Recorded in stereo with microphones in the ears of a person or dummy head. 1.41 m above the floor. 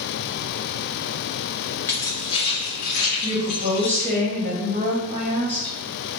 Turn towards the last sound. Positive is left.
turn(degrees=-30)  # may be behind; listen again after turning